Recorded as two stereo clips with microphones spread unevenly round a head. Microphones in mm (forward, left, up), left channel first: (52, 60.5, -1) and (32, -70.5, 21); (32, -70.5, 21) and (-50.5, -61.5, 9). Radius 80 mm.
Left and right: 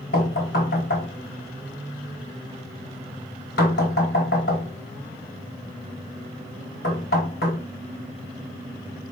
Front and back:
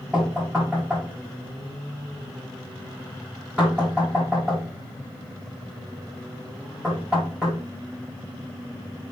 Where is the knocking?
90° left, 4.5 m.